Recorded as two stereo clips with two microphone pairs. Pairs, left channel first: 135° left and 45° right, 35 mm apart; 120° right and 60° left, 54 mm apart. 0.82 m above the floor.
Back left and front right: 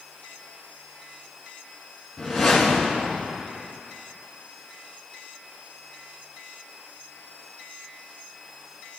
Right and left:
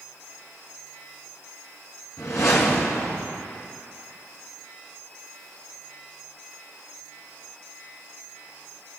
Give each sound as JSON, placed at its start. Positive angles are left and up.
{"t": 2.2, "sound": "a whoosh", "azimuth_deg": -130, "distance_m": 2.5}